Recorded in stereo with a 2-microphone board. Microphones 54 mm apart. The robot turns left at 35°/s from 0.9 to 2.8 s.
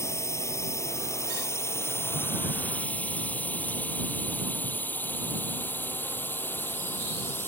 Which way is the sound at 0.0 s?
60° left (ahead or behind).